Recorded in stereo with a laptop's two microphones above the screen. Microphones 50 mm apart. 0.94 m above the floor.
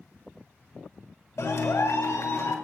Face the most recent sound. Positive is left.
turn(degrees=75)  # may be behind; listen again after turning